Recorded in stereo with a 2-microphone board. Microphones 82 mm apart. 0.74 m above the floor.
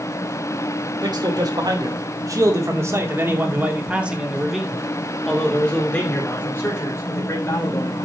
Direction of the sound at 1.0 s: 60° right (ahead or behind).